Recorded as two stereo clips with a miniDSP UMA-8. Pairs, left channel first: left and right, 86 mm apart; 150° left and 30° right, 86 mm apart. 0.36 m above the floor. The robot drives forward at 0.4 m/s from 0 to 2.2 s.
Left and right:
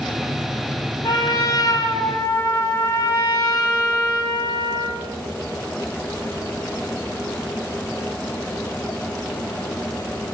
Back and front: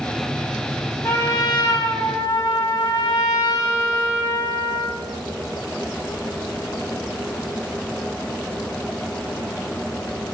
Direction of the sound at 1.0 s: 110° left.